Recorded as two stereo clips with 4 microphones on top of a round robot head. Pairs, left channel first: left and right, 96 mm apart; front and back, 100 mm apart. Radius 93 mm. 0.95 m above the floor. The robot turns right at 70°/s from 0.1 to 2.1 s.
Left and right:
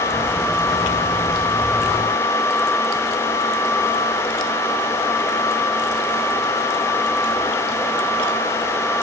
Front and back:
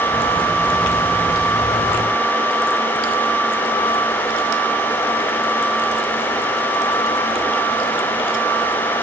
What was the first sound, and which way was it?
Only background noise.